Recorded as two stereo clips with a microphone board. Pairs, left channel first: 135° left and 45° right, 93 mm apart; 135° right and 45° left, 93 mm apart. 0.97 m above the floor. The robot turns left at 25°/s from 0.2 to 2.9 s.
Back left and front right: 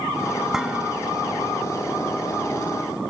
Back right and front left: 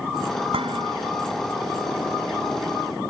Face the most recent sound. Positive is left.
turn(degrees=-20)